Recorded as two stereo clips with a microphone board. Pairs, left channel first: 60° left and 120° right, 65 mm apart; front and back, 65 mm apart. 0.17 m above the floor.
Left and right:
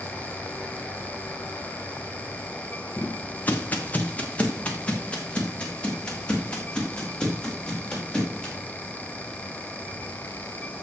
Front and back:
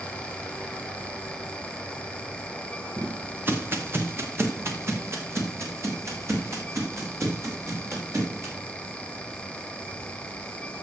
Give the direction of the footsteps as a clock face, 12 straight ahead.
8 o'clock.